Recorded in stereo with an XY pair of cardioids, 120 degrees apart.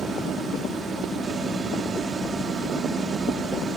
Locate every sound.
0.0 s a machine running: 40° right, 3 m